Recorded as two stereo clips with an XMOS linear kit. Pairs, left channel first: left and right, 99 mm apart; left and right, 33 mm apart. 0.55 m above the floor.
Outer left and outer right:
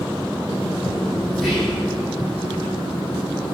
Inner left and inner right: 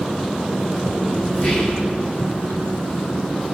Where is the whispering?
5° left (ahead or behind), 3 m.